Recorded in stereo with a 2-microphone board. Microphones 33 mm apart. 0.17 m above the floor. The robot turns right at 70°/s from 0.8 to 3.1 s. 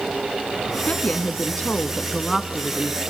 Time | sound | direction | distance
0.9 | a woman speaking | 70° left | 1.3 m